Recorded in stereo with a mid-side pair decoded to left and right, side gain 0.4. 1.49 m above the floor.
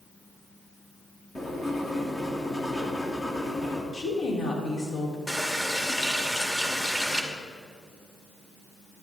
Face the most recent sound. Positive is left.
turn(degrees=10)